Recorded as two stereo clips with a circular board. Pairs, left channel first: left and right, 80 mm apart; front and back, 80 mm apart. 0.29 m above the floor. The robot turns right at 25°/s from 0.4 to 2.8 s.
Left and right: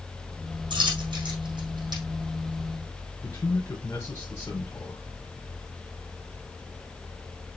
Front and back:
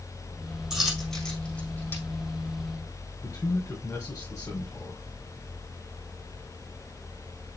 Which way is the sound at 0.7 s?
95° right.